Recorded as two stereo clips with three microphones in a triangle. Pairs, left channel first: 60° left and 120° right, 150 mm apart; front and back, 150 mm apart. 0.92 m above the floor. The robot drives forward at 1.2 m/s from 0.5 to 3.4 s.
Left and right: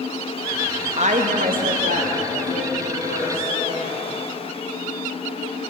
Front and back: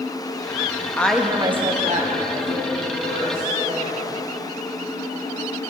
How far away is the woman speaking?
About 0.7 m.